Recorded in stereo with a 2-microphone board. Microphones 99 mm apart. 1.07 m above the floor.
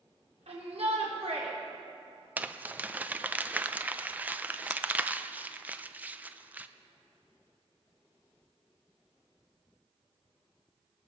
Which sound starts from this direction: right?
A shout, at 0.5 s.